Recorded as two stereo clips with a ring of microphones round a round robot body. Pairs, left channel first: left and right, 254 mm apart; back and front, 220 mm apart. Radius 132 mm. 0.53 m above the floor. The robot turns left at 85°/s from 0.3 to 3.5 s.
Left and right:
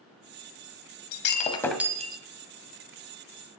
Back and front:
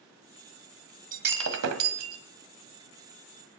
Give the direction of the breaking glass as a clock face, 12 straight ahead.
10 o'clock.